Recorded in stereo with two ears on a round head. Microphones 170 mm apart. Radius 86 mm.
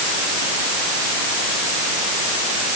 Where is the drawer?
No drawer in this recording.